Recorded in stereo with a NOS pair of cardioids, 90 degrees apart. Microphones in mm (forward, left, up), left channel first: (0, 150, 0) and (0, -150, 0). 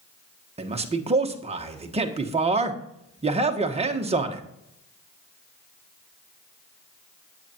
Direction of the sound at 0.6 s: 20° right.